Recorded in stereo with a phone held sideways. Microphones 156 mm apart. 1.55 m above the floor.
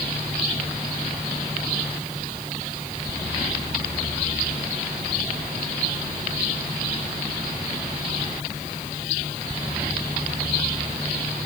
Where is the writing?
I don't hear writing.